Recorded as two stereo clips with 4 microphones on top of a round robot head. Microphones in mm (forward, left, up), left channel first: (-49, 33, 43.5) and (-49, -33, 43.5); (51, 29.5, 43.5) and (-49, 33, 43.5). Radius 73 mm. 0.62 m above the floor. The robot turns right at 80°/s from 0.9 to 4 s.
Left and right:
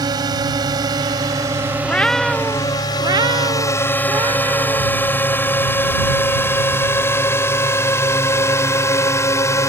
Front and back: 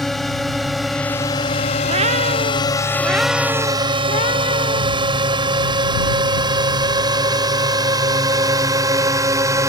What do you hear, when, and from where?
0.0 s a drone: 90° right; by 9.7 s 125° left
1.8 s a cat meowing: 150° left; by 4.9 s 40° right